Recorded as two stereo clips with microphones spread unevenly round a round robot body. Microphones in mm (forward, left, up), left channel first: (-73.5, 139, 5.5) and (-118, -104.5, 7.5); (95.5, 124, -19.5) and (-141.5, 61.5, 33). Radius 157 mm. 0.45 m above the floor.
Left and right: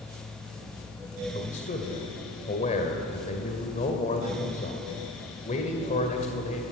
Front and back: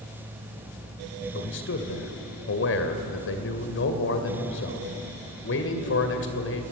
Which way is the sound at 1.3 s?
20° left.